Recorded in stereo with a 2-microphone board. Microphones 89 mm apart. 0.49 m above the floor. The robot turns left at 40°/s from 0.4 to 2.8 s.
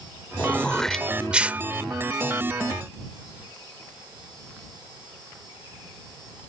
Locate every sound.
0.4 s throat clearing: 20° left (ahead or behind); by 1.6 s 20° right (ahead or behind)